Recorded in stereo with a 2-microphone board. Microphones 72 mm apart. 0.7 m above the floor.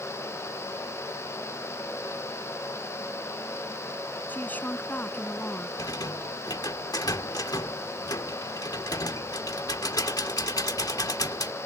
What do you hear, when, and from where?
4.3 s a woman speaking: 25° left (ahead or behind)
5.8 s a rattle: 60° left (ahead or behind)